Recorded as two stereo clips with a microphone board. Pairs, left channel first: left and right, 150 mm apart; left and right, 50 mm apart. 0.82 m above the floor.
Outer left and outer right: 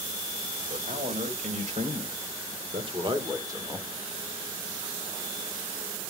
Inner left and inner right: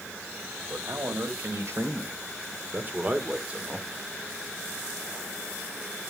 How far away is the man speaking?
About 3.5 m.